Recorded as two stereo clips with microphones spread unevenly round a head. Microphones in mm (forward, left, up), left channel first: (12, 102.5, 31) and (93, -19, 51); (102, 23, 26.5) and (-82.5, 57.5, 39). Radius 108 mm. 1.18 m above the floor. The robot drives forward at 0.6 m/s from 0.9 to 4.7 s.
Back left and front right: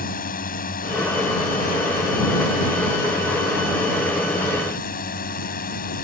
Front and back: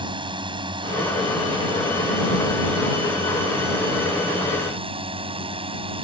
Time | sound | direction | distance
0.0 | a drone | 105° left | ?